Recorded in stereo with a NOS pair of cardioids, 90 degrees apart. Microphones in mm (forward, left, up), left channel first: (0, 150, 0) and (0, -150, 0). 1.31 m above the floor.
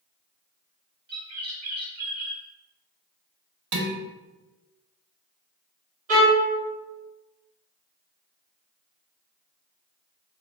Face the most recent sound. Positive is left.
turn(degrees=-50)